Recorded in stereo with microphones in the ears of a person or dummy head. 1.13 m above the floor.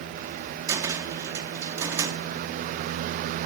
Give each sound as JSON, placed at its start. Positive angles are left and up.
{"t": 0.7, "sound": "a cupboard door", "side_deg": -20, "distance_m": 0.7}